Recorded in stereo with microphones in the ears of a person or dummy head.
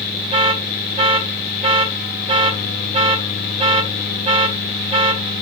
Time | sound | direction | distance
0.3 | an alarm | 25° right (ahead or behind) | 3 m